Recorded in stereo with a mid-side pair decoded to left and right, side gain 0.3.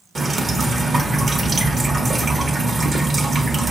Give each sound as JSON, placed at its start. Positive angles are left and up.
{"t": 0.1, "sound": "dripping", "azimuth_deg": -50, "distance_m": 1.0}